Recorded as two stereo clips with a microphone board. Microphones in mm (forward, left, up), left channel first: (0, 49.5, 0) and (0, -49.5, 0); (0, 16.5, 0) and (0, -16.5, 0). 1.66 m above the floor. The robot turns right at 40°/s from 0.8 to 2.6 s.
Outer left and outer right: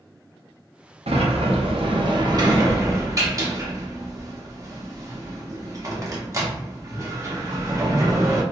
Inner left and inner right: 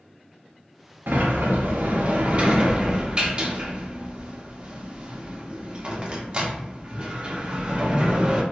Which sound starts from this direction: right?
A sliding door, at 1.1 s.